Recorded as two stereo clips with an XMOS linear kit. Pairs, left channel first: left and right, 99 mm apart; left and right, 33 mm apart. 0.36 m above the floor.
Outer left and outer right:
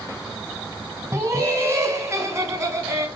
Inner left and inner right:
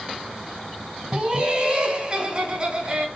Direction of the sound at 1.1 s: 30° right (ahead or behind).